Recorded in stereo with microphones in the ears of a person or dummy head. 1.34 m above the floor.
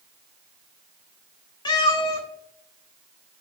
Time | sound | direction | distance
1.6 | a cat meowing | 20° left (ahead or behind) | 1.4 m